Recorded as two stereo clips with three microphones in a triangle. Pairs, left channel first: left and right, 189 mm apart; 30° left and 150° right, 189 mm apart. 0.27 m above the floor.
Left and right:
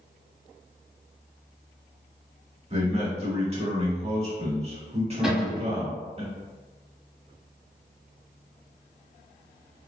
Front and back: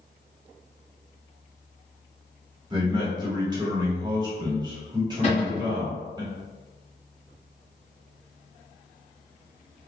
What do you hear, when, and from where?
2.7 s a man speaking: 105° right, 1.1 m
5.2 s a cupboard door: 5° right, 1.3 m